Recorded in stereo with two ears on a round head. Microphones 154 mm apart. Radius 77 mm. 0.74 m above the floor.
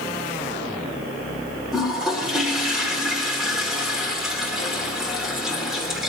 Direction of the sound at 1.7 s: Centre (ahead or behind).